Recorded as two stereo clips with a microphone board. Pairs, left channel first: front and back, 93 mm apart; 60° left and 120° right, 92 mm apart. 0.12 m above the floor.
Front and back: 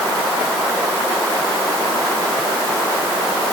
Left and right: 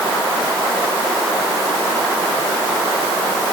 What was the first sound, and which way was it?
Only background noise.